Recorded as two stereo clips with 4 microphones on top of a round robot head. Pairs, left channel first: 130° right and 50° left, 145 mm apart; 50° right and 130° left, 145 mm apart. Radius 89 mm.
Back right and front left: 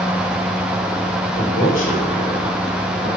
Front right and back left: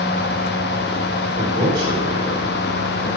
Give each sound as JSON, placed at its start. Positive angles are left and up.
{"t": 1.4, "sound": "a man speaking", "azimuth_deg": -160, "distance_m": 7.5}